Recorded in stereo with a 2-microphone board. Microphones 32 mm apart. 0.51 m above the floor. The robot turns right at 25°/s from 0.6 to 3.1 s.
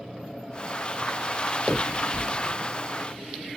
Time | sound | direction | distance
1.7 | a finger snap | 40° right (ahead or behind) | 2 m